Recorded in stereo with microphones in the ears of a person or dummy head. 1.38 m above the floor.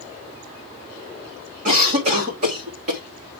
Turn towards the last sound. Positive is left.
turn(degrees=-50)  # may be behind; listen again after turning